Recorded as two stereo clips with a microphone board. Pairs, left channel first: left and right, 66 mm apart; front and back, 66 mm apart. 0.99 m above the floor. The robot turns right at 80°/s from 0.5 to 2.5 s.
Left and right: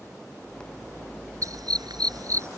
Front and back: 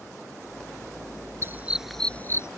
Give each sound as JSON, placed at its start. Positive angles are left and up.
{"t": 1.4, "sound": "a dog barking", "azimuth_deg": -130}